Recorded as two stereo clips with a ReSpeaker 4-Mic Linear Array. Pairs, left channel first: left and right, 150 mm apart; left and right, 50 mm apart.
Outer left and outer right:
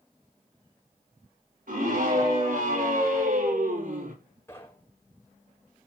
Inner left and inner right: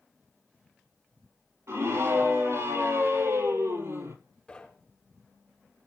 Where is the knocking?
15° left (ahead or behind), 6 m.